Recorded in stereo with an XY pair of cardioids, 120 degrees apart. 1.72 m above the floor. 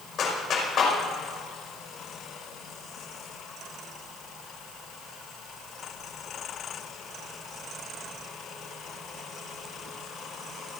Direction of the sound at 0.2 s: 50° left.